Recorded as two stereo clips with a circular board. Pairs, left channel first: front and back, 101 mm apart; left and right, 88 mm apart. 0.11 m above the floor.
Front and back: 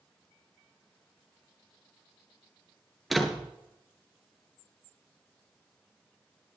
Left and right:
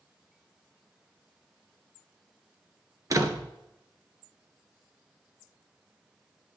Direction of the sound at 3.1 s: 90° right.